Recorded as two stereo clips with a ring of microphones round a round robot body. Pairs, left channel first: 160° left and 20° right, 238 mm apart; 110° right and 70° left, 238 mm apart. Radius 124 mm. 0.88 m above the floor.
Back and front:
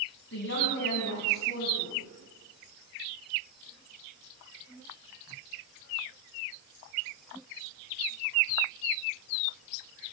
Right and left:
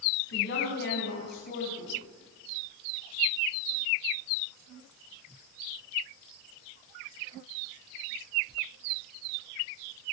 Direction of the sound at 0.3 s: 160° right.